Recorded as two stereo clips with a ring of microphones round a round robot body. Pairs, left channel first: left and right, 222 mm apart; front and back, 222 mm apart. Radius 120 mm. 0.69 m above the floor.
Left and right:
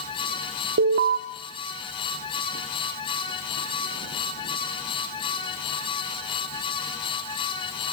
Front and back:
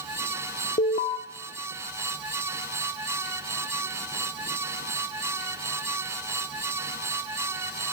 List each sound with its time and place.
0.8 s an alarm: 60° right, 1.3 m